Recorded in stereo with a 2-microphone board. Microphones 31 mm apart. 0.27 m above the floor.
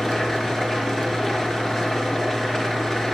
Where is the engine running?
15° left (ahead or behind), 4 m.